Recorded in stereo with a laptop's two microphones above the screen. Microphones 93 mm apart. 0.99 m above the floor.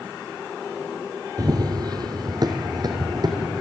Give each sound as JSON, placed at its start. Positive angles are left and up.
{"t": 1.4, "sound": "running footsteps", "side_deg": -45, "distance_m": 1.4}